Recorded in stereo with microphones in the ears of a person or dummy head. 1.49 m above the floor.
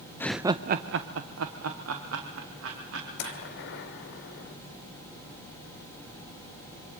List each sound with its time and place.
0.2 s laughter: 15° left (ahead or behind), 0.6 m; by 3.4 s 80° right, 3.5 m
3.2 s a gunshot: 65° left (ahead or behind), 2.5 m